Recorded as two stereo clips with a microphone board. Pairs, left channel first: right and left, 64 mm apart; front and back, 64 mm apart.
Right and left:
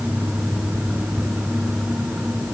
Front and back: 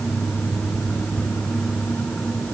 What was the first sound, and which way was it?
Only background noise.